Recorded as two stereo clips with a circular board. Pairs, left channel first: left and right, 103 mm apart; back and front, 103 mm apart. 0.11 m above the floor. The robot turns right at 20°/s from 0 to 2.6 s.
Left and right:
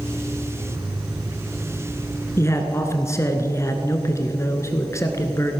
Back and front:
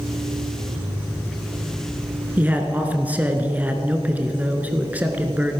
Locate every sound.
2.4 s a man speaking: 55° left, 1.3 m; by 5.6 s 60° left, 1.3 m